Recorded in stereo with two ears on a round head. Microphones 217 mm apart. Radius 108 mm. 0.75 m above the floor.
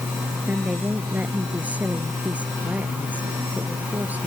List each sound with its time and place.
0.5 s a woman speaking: 5° right (ahead or behind)